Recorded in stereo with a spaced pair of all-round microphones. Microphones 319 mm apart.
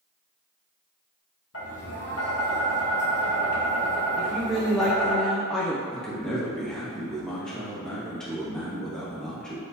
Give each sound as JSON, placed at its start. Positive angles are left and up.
{"t": 1.5, "sound": "tapping", "side_deg": 45, "distance_m": 1.0}
{"t": 4.2, "sound": "a woman speaking", "side_deg": 0, "distance_m": 0.6}
{"t": 5.9, "sound": "a man speaking", "side_deg": 0, "distance_m": 1.1}